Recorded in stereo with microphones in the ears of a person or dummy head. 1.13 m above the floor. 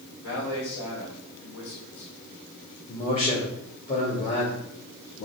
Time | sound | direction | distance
0.2 | a man speaking | 65° left (ahead or behind) | 3 m
2.9 | a man speaking | 35° left (ahead or behind) | 2.5 m